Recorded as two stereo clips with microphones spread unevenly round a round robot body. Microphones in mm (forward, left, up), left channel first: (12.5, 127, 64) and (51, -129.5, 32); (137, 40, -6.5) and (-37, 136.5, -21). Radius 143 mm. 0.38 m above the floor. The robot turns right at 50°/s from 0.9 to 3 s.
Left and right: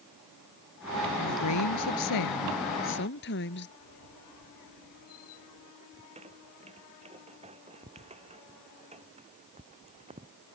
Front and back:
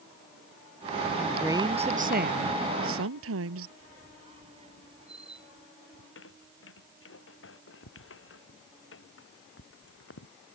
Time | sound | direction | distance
1.2 | a woman speaking | 60° left | ?
3.8 | a squeak | 90° left | ?
5.9 | a squeak | 15° right | ?